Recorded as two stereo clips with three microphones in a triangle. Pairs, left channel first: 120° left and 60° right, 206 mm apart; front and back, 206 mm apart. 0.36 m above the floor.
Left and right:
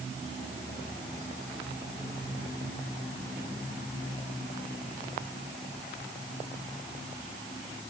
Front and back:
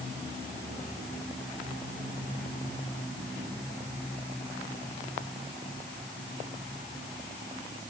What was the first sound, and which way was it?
Only background noise.